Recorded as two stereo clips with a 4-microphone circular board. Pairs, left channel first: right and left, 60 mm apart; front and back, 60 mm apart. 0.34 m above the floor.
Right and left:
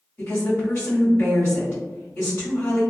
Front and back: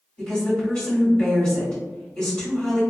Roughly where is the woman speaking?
Ahead right.